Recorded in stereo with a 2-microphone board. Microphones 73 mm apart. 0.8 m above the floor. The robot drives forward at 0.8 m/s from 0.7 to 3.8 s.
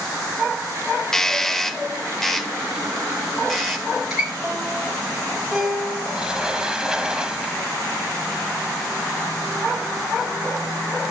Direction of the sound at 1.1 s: 5° left (ahead or behind).